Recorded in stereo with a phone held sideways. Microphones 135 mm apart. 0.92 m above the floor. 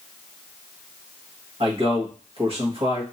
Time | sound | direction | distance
1.6 | a man speaking | 45° right (ahead or behind) | 1.7 m